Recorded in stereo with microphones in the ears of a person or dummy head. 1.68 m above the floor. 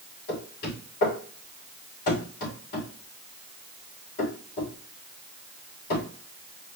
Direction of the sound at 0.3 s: 50° left (ahead or behind).